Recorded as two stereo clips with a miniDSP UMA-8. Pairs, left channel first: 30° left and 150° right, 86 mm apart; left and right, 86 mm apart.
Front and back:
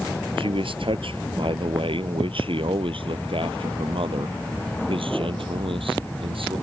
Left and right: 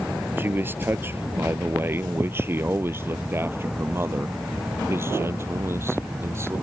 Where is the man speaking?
155° right; by 6.5 s 150° right.